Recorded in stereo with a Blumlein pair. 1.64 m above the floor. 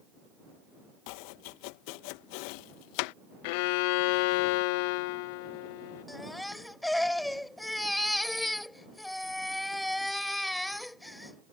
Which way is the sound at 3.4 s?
45° left.